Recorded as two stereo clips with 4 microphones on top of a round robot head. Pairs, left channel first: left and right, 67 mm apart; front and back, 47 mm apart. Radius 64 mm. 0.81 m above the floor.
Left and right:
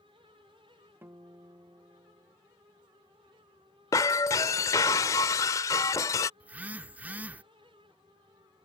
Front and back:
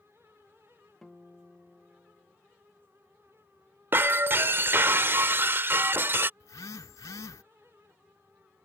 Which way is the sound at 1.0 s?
75° right.